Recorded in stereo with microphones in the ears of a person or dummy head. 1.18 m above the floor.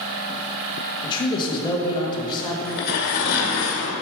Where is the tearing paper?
55° left (ahead or behind), 1.8 m.